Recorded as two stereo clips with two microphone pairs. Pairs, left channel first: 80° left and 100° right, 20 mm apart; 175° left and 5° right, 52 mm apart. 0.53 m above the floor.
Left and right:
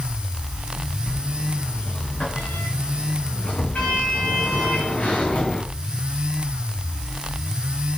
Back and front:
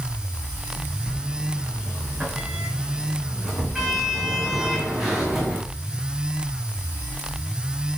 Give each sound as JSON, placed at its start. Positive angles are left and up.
{"t": 1.1, "sound": "a sliding door", "azimuth_deg": 80, "distance_m": 7.0}